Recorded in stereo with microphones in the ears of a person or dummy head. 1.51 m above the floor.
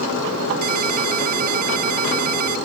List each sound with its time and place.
0.6 s a ringtone: 50° right (ahead or behind)